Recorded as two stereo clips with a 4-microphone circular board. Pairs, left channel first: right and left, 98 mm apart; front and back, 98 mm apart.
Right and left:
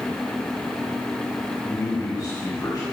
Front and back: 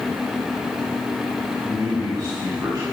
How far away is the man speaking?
About 5 m.